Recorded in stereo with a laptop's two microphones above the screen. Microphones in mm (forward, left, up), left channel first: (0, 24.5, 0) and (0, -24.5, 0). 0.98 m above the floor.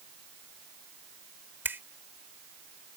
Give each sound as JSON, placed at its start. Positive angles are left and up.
{"t": 1.6, "sound": "a finger snap", "side_deg": -55}